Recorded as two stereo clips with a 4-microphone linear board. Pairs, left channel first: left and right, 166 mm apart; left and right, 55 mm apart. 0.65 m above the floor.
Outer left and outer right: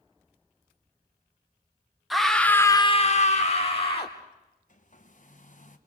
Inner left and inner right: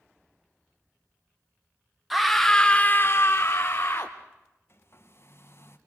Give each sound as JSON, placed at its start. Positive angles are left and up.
{"t": 2.1, "sound": "a scream", "side_deg": 0, "distance_m": 1.3}
{"t": 4.7, "sound": "a hair dryer", "side_deg": 50, "distance_m": 1.4}